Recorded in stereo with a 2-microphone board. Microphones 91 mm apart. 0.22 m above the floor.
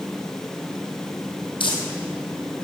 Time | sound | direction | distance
1.6 | crumpling | 70° left (ahead or behind) | 2.5 m